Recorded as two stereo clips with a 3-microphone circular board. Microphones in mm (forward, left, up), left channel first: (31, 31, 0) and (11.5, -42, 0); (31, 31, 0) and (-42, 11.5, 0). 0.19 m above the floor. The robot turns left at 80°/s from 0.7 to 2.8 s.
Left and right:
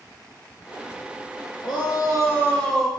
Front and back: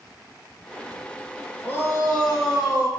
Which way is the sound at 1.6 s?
80° left.